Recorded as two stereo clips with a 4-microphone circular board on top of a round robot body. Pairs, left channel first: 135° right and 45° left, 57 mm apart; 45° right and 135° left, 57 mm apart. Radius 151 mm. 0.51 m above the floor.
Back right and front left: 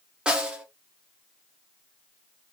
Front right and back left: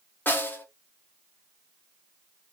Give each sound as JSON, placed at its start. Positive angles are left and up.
{"t": 0.3, "sound": "a snare drum", "azimuth_deg": -20, "distance_m": 1.1}